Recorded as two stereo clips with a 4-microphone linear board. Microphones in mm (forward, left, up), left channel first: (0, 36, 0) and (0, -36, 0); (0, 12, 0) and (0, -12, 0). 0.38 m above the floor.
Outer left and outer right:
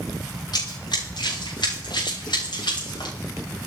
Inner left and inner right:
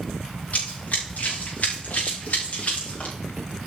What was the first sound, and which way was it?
Running footsteps, 70° left (ahead or behind).